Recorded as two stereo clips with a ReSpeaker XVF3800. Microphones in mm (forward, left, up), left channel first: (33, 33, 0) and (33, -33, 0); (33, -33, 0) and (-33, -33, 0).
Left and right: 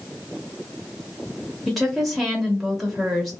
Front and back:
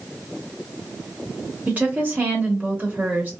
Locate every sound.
1.7 s a woman speaking: straight behind, 0.9 m